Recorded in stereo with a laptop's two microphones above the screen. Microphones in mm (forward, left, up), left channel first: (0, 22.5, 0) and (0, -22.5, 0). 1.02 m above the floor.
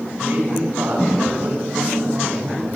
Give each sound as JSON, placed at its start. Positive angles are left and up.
{"t": 0.2, "sound": "a man speaking", "side_deg": -55, "distance_m": 8.0}